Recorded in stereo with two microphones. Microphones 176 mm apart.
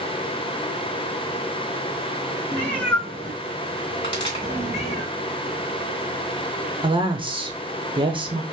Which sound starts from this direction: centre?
A cat meowing, at 2.5 s.